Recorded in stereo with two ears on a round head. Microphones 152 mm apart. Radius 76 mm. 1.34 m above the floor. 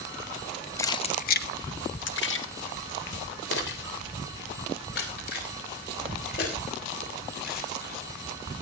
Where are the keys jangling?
15° left (ahead or behind), 0.9 m; by 8.0 s 55° left (ahead or behind), 8.5 m.